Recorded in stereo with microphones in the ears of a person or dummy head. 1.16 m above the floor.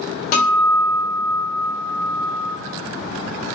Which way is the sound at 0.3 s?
45° left (ahead or behind).